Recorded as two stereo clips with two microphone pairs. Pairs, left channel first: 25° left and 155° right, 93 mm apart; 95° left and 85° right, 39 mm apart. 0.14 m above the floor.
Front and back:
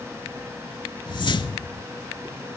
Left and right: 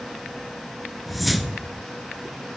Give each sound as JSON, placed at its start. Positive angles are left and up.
{"t": 1.1, "sound": "a whoosh", "azimuth_deg": 5, "distance_m": 0.5}